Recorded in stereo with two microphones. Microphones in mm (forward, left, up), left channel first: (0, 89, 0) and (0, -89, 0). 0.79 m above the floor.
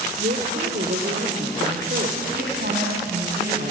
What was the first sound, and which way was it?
A woman speaking, 65° right (ahead or behind).